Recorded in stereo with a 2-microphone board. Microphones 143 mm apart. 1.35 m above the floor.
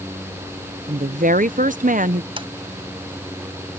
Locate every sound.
0.9 s a woman speaking: 65° right (ahead or behind)
2.4 s a sliding door: 40° right (ahead or behind)